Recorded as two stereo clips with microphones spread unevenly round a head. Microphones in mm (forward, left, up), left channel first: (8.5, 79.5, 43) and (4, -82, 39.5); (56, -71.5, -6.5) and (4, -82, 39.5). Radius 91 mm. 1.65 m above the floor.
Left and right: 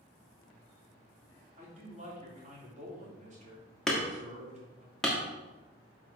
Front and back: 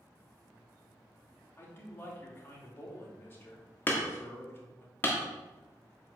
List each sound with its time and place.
1.6 s a man speaking: 45° right, 3 m
3.9 s hammering: 170° left, 1.2 m